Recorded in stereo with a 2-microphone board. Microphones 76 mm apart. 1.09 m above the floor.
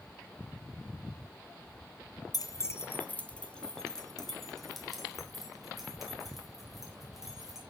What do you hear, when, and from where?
2.3 s keys jangling: 55° left (ahead or behind), 0.7 m; by 7.6 s 5° right (ahead or behind), 5.5 m